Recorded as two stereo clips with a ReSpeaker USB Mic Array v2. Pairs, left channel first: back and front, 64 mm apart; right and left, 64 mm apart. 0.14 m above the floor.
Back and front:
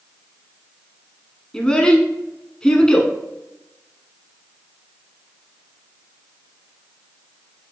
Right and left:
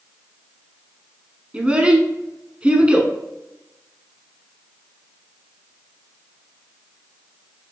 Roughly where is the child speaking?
Behind left.